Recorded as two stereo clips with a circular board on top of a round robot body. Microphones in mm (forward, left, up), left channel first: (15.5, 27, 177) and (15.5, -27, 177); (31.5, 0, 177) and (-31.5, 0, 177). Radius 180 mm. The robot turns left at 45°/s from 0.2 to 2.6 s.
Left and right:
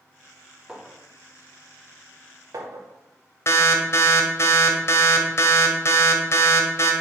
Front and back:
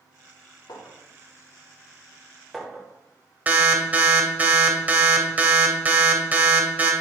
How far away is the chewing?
I don't hear chewing.